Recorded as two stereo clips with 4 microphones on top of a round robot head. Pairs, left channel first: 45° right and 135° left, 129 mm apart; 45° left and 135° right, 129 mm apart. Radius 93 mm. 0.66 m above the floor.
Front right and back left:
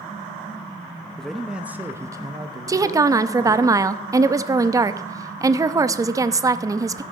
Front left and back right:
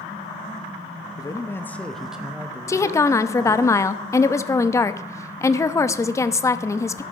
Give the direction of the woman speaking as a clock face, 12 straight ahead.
9 o'clock.